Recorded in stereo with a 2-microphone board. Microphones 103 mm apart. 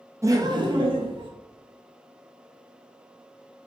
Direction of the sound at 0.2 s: 25° right (ahead or behind).